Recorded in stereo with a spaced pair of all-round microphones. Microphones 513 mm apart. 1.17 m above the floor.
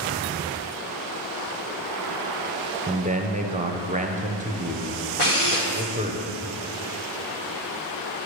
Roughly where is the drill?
Left.